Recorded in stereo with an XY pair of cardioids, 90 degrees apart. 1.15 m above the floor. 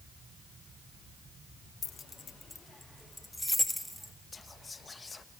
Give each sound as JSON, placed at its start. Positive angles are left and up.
{"t": 1.8, "sound": "keys jangling", "azimuth_deg": 60, "distance_m": 0.5}
{"t": 4.3, "sound": "whispering", "azimuth_deg": 30, "distance_m": 1.4}